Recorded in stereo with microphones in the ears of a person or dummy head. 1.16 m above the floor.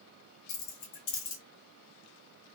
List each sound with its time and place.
0.5 s keys jangling: 80° left, 0.8 m